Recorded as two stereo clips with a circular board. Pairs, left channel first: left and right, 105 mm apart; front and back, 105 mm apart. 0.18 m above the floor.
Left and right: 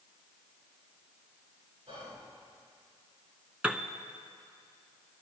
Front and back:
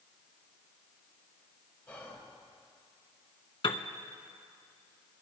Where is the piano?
15° right, 0.6 m.